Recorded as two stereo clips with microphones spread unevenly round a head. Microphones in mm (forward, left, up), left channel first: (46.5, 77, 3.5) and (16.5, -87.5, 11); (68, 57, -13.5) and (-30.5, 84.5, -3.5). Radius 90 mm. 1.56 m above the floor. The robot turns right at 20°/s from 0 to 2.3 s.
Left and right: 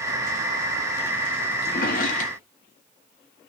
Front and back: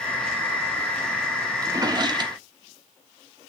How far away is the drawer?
About 1.5 m.